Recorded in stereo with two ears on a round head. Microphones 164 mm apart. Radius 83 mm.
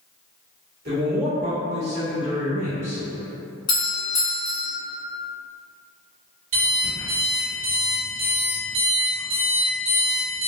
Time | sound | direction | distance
0.8 | a man speaking | 55° right (ahead or behind) | 2.0 m
3.7 | a doorbell | 25° left (ahead or behind) | 1.6 m
6.5 | an alarm clock | 80° right | 1.9 m